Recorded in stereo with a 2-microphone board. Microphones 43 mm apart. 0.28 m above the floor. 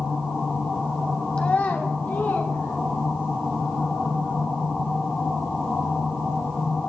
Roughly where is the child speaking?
Left.